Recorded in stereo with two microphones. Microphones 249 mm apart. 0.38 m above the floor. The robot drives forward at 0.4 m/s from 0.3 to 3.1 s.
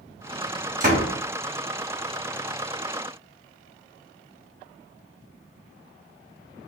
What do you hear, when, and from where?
0.8 s a door slam: 35° right (ahead or behind), 2.5 m